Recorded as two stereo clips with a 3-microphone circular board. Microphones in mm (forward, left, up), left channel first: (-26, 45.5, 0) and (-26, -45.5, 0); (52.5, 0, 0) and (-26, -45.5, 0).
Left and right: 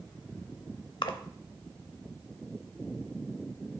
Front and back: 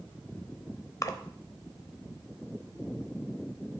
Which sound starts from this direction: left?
A splash, at 1.0 s.